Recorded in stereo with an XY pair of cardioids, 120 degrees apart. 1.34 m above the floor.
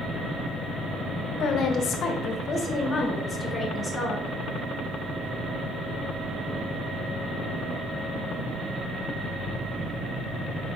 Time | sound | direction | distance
1.4 | a woman speaking | 65° left | 1.2 m